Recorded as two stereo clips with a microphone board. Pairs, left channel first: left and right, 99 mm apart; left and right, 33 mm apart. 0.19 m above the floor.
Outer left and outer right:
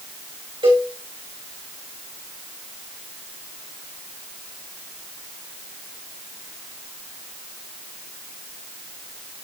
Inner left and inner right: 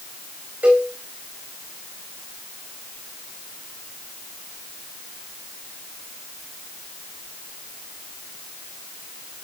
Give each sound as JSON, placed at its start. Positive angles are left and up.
{"t": 0.6, "sound": "a cowbell", "side_deg": -65, "distance_m": 3.0}